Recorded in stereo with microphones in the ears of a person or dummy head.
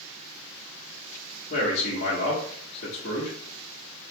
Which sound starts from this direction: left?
A man speaking, at 1.5 s.